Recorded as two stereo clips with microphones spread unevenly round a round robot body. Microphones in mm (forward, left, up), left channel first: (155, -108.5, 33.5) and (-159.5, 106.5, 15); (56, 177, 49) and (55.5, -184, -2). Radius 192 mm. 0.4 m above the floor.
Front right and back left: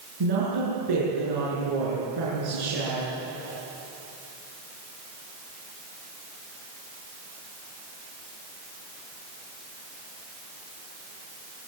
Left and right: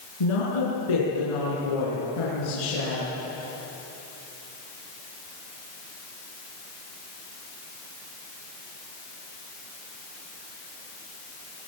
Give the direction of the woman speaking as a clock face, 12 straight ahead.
8 o'clock.